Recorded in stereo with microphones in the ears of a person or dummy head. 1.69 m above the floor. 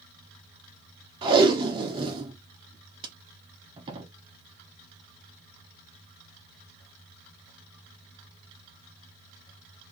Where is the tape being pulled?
25° right (ahead or behind), 1.1 m.